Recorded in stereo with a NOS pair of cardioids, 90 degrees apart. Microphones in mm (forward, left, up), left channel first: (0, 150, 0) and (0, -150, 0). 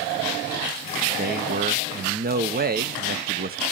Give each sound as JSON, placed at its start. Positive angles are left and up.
{"t": 1.2, "sound": "a man speaking", "azimuth_deg": -30, "distance_m": 1.0}